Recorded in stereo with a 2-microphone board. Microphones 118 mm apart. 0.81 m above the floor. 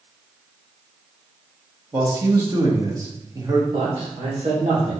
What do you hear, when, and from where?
1.9 s a man speaking: 30° right (ahead or behind), 1.7 m
3.7 s a man speaking: 60° right (ahead or behind), 2 m